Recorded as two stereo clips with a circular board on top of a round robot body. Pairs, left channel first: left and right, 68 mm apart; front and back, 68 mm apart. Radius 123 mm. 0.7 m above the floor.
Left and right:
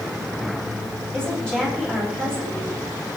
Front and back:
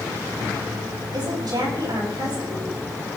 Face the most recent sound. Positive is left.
turn(degrees=165)